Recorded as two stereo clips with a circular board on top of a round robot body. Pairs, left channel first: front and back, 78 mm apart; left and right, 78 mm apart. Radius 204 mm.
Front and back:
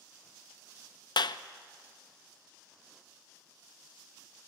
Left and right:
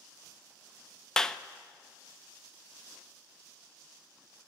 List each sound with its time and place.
1.2 s a clap: 10° left, 0.7 m